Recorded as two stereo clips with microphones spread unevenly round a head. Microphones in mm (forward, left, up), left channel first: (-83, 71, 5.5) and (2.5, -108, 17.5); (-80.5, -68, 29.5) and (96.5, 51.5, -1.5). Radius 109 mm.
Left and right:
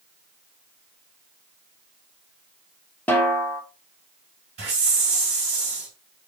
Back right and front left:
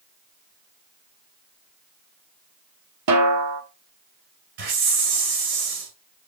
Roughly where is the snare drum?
Ahead left.